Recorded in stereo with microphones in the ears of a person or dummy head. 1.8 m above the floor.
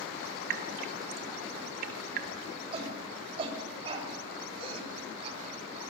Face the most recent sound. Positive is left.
turn(degrees=-35)  # may be behind; listen again after turning